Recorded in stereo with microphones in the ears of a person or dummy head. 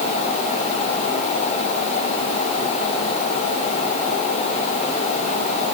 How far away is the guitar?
No guitar in this recording.